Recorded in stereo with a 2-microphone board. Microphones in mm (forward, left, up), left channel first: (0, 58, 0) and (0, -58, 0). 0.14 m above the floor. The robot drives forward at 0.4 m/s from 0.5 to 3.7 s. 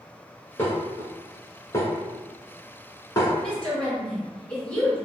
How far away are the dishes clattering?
About 1.5 m.